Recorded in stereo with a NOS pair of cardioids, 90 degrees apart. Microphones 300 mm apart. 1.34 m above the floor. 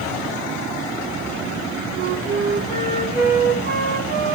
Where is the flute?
30° right, 3 m.